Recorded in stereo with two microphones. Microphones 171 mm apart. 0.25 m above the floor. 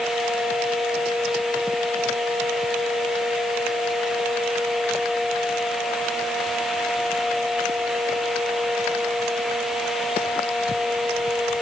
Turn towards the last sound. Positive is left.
No sound to turn to.